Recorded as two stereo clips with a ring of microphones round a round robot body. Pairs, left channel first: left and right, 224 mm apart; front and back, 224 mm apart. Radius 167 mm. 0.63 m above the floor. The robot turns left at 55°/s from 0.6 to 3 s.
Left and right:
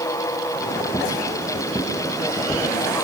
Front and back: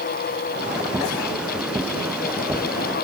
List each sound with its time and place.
Only background noise.